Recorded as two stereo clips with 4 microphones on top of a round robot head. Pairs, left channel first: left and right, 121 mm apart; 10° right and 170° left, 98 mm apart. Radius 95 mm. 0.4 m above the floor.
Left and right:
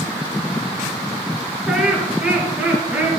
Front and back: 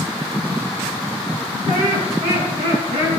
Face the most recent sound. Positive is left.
turn(degrees=-165)